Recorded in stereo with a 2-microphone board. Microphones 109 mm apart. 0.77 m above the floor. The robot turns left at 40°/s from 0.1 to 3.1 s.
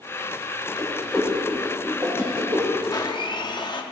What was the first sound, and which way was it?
A whoosh, 15° left (ahead or behind).